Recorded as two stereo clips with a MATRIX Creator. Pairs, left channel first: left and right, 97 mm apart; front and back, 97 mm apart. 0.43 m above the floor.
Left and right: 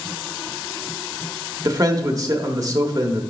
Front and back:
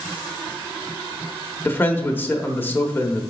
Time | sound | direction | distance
1.6 | a man speaking | 60° right | 1.0 m